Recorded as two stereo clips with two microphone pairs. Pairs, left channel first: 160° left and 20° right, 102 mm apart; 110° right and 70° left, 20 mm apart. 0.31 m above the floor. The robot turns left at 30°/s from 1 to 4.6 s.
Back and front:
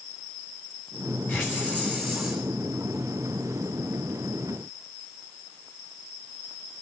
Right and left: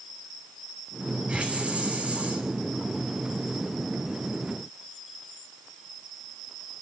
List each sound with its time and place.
1.3 s a hiss: 95° left, 6.5 m; by 2.4 s 60° left, 6.5 m